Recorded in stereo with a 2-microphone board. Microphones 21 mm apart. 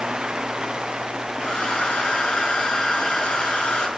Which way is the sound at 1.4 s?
55° left (ahead or behind).